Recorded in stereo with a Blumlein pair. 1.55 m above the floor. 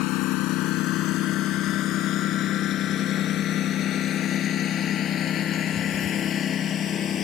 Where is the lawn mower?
40° left; by 7.2 s 25° left.